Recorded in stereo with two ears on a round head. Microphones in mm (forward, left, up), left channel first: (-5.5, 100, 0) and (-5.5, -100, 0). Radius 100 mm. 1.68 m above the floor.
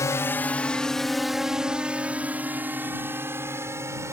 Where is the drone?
15° left (ahead or behind); by 4.1 s 15° right (ahead or behind).